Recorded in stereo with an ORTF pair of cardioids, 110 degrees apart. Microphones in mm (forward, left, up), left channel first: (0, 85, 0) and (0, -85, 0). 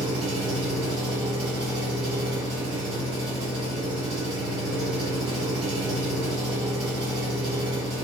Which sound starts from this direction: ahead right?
An engine running, at 0.0 s.